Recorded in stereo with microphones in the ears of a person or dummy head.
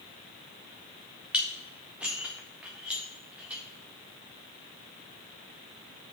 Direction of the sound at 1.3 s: 5° right (ahead or behind).